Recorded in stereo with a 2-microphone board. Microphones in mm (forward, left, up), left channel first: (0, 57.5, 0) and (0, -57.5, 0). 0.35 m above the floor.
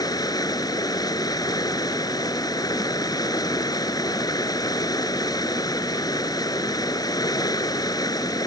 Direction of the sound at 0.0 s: 35° left (ahead or behind).